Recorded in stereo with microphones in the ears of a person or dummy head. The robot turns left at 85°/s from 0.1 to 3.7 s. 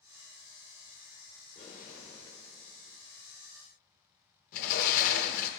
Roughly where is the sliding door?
Left.